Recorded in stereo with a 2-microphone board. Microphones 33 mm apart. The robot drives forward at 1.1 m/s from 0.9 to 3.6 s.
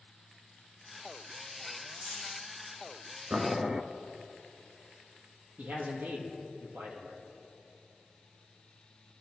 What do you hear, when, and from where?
1.9 s a dropped coin: 55° right (ahead or behind), 5.5 m; by 2.4 s 50° right (ahead or behind), 5.5 m
3.3 s boiling: 35° right (ahead or behind), 0.8 m; by 3.8 s 25° right (ahead or behind), 1.0 m
5.6 s a man speaking: 75° right (ahead or behind), 5 m